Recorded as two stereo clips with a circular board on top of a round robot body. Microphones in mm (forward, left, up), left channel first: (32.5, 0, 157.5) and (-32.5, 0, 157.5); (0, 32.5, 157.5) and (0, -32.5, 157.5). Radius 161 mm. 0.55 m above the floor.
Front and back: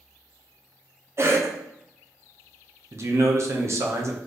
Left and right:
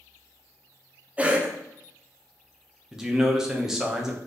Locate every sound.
1.2 s a cough: 155° right, 1.1 m
2.9 s a man speaking: 170° right, 1.1 m